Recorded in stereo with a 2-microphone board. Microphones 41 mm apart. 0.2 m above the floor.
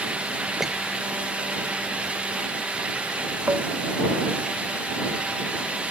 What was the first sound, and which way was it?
A squeak, 10° right (ahead or behind).